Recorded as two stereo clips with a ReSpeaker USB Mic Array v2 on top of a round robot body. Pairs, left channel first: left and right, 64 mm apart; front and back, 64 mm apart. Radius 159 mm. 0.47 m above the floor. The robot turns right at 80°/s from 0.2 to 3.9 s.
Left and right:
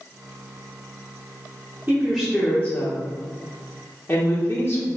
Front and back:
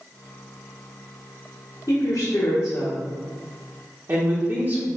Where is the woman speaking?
20° right, 1.1 m; by 4.9 s 145° left, 1.1 m.